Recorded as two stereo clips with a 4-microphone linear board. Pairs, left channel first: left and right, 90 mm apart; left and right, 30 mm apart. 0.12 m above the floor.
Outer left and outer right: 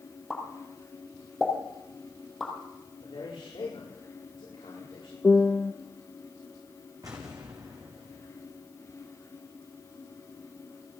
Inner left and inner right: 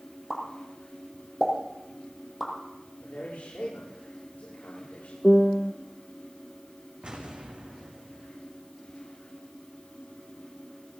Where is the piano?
20° left (ahead or behind), 0.5 m.